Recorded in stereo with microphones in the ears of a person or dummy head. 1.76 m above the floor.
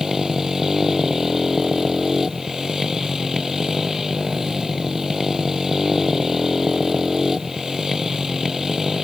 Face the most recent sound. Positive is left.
turn(degrees=-5)  # may be behind; listen again after turning